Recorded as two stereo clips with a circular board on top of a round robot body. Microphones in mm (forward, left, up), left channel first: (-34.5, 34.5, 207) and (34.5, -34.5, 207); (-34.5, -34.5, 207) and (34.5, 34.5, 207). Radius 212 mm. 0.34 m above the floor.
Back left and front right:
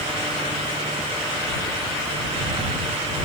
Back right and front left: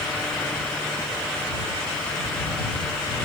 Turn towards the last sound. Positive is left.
No sound to turn to.